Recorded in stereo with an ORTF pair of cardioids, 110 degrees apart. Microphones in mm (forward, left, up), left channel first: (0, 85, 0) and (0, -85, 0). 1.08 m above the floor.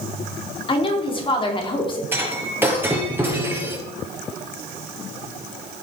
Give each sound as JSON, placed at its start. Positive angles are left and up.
{"t": 0.7, "sound": "a woman speaking", "azimuth_deg": 30, "distance_m": 3.0}
{"t": 2.1, "sound": "breaking glass", "azimuth_deg": -10, "distance_m": 3.0}